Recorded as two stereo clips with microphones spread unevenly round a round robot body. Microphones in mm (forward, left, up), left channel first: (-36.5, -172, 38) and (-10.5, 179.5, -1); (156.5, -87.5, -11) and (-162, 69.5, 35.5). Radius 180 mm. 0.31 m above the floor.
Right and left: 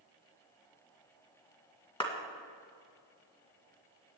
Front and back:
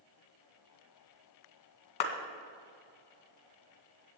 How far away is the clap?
About 1.9 m.